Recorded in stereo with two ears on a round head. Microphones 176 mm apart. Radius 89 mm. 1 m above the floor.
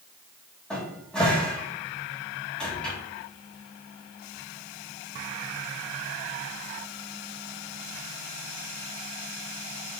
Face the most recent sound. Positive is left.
turn(degrees=5)  # may be behind; listen again after turning